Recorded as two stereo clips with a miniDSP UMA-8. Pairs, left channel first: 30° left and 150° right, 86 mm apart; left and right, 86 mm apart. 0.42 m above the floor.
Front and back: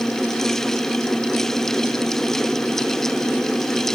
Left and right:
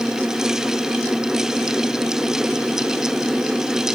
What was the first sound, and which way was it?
Only background noise.